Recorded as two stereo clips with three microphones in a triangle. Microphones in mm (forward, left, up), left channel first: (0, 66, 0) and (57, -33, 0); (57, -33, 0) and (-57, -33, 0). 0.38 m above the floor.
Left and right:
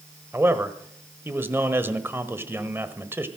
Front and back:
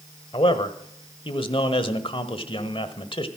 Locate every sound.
0.3 s a man speaking: 5° left, 1.2 m